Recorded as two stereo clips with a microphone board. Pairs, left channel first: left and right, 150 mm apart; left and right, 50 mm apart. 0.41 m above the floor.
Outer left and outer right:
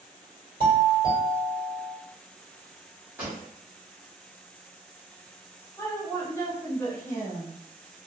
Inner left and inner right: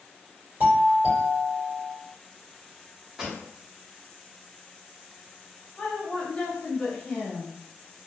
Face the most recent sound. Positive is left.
turn(degrees=20)  # may be behind; listen again after turning